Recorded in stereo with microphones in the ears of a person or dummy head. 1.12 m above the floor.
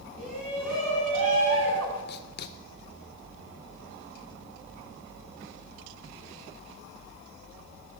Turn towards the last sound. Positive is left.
turn(degrees=50)  # may be behind; listen again after turning